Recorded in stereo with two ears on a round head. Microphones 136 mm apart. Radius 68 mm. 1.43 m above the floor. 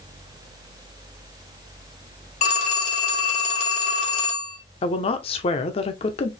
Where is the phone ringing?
50° left (ahead or behind), 3 m.